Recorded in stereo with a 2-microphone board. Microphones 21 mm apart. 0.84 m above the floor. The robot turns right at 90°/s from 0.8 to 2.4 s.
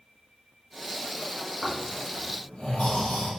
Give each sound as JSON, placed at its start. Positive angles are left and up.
{"t": 1.6, "sound": "snoring", "side_deg": 0, "distance_m": 1.5}